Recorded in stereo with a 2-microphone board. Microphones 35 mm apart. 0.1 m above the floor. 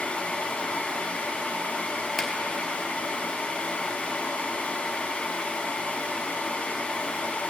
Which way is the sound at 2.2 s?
5° left (ahead or behind).